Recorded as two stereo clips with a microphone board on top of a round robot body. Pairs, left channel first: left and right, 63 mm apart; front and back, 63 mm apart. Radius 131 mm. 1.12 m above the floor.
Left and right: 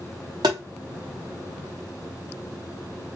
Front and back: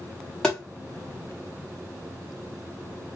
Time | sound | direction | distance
0.4 | tapping | 80° right | 0.7 m